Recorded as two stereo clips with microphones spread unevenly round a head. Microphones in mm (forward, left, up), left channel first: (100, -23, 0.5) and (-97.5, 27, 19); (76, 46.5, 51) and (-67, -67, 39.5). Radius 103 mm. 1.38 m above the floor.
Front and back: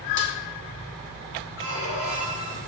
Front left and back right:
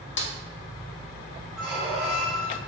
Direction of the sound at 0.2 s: 15° left.